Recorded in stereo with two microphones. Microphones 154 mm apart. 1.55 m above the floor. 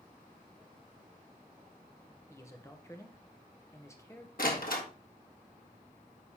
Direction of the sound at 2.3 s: 20° left (ahead or behind).